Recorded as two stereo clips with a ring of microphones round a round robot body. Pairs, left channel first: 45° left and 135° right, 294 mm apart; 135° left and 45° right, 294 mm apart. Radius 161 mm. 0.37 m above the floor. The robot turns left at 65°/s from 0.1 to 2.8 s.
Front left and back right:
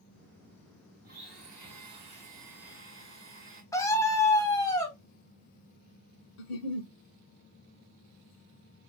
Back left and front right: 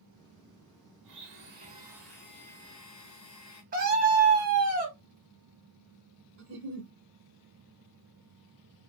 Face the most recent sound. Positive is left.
turn(degrees=10)